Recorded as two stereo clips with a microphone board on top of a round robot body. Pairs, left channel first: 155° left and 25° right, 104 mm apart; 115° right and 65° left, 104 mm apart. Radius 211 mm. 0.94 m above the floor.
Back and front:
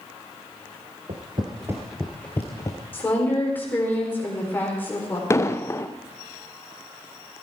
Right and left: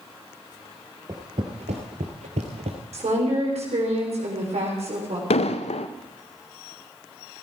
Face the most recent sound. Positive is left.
turn(degrees=-140)